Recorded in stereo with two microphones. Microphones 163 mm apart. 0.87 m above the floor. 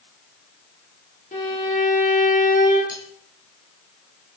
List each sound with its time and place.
1.3 s a violin: 50° left (ahead or behind), 8 m
2.9 s cutlery clinking: 55° left (ahead or behind), 9.5 m